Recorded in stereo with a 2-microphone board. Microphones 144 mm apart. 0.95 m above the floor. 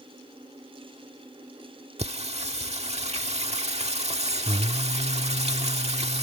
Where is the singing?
50° right (ahead or behind).